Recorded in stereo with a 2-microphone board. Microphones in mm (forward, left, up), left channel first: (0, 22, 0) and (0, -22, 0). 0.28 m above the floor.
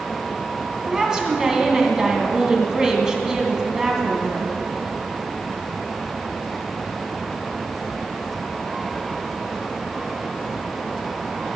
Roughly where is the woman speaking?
Centre.